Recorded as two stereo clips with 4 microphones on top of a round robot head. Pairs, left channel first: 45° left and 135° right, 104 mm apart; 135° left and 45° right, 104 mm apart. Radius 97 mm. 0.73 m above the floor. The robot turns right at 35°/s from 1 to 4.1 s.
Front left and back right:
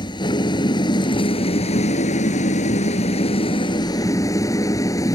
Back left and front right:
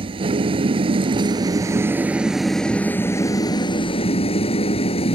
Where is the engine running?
5° right; by 5.2 s 105° left.